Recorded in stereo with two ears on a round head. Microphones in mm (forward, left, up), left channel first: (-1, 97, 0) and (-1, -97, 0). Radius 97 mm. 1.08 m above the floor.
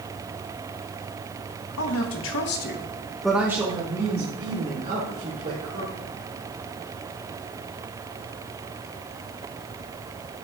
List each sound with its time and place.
1.8 s a woman speaking: 75° left (ahead or behind), 1.5 m; by 6.0 s 45° right (ahead or behind), 3.5 m